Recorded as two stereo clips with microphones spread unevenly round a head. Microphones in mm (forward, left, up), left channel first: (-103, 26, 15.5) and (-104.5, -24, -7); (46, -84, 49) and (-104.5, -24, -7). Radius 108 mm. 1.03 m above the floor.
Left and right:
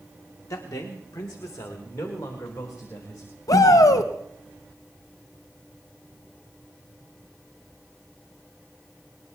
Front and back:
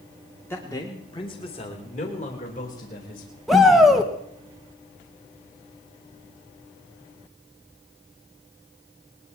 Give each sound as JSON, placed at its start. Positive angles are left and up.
{"t": 0.5, "sound": "a man speaking", "azimuth_deg": 60, "distance_m": 2.0}
{"t": 3.5, "sound": "a shout", "azimuth_deg": 80, "distance_m": 1.2}